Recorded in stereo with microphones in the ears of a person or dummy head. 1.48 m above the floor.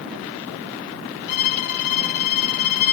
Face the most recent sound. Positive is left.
turn(degrees=50)  # may be behind; listen again after turning